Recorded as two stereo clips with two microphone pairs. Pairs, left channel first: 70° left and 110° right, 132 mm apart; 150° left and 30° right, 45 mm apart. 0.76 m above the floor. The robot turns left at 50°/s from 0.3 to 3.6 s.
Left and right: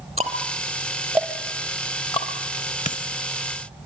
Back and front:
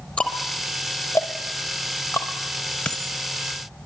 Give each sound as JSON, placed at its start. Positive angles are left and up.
{"t": 0.2, "sound": "ticking", "azimuth_deg": -150, "distance_m": 4.5}
{"t": 2.9, "sound": "a dropped coin", "azimuth_deg": 85, "distance_m": 0.8}